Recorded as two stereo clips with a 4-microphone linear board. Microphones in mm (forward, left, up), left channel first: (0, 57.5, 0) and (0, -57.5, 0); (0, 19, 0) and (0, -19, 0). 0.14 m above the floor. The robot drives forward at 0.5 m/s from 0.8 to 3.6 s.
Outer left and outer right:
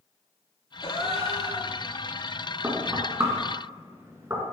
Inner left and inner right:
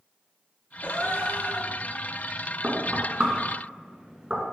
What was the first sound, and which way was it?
A gasp, 55° left (ahead or behind).